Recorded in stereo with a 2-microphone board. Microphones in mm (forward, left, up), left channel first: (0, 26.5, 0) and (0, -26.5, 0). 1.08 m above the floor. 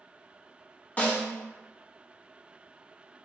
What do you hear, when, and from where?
1.0 s a snare drum: 30° left (ahead or behind), 0.6 m